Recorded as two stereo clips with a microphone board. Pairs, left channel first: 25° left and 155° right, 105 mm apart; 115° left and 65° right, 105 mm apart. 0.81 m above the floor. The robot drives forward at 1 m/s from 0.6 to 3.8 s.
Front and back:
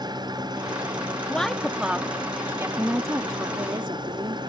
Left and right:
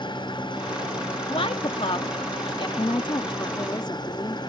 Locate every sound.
0.0 s an engine running: 155° left; by 4.5 s 160° left
1.3 s a woman speaking: 100° left; by 2.7 s 140° left
2.8 s a woman speaking: 125° left; by 4.5 s 160° left